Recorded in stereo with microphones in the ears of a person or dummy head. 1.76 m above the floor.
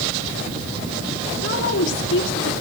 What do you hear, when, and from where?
1.4 s a woman speaking: 70° left (ahead or behind), 3 m